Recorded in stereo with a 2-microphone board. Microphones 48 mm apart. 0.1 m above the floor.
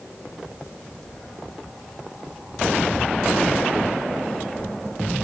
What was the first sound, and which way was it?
Footsteps, 10° left (ahead or behind).